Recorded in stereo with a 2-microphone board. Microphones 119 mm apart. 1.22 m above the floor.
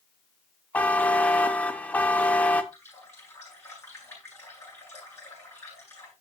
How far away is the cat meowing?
I don't hear a cat meowing.